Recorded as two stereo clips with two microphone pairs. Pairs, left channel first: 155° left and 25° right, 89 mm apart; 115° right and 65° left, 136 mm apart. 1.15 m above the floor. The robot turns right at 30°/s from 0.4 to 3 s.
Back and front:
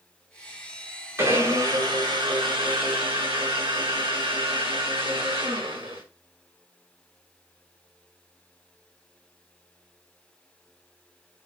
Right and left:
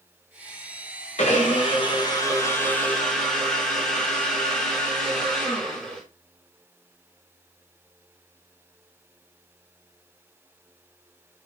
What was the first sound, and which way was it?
A blender, 85° right.